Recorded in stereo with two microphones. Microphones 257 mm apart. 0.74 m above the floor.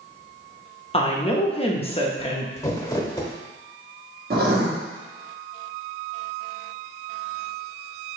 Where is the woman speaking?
25° left (ahead or behind), 0.7 m.